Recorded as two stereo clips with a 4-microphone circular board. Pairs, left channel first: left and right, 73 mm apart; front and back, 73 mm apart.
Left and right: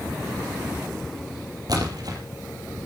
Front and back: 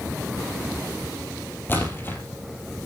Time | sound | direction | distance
1.7 | a splash | 60° right | 3 m